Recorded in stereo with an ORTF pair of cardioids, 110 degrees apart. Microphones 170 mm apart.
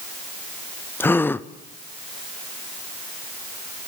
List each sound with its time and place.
1.0 s a gasp: 10° left, 0.7 m